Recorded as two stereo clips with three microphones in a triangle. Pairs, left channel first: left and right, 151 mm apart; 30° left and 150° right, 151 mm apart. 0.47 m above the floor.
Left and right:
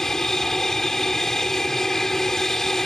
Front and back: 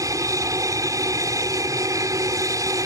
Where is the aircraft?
175° left.